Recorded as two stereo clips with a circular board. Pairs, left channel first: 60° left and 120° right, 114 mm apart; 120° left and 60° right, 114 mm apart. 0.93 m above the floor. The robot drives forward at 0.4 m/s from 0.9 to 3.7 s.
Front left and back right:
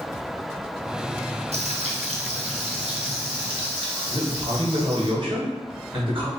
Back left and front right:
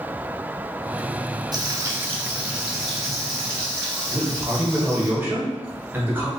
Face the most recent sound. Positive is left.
turn(degrees=-130)